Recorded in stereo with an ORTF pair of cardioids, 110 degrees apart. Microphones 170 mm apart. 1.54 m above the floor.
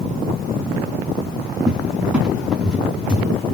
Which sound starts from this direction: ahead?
A cupboard door, at 1.7 s.